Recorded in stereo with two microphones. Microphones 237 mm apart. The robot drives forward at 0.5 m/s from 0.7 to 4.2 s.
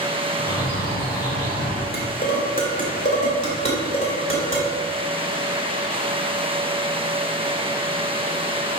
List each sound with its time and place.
0.4 s a bird: 15° left (ahead or behind), 2.5 m
1.9 s dishes clattering: 45° left (ahead or behind), 1.5 m; by 4.7 s 25° left (ahead or behind), 2.5 m